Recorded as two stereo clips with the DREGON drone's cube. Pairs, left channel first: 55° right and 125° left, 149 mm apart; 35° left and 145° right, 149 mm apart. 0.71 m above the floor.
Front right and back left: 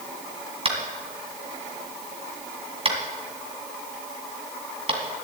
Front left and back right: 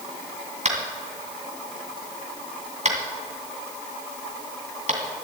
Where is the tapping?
175° left, 2 m.